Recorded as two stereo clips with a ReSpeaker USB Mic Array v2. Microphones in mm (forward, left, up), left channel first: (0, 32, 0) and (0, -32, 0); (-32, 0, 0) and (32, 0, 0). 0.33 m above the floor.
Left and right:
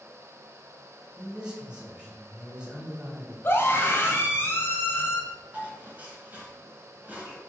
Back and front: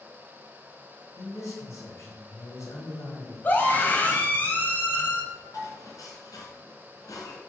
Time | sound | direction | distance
1.2 | a man speaking | 170° right | 2 m
3.4 | a scream | 125° left | 1.7 m
5.5 | dishes clattering | 155° right | 2.5 m